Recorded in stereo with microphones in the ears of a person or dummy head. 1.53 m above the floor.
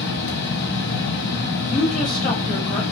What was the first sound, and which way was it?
A fan, 60° left (ahead or behind).